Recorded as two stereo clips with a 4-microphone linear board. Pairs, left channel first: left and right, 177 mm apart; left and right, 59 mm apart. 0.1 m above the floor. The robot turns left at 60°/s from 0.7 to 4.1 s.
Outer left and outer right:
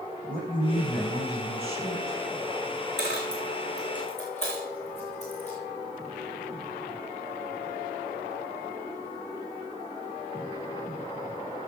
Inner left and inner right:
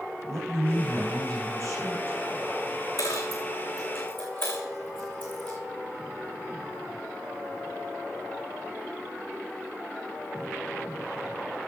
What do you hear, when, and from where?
0.3 s a man speaking: 55° right, 7 m; by 2.2 s 145° right, 7 m
3.0 s a dropped coin: 70° left (ahead or behind), 3 m; by 5.6 s 40° left (ahead or behind), 3 m